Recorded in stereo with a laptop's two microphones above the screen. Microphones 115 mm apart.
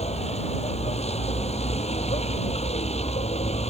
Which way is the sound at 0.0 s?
70° left (ahead or behind).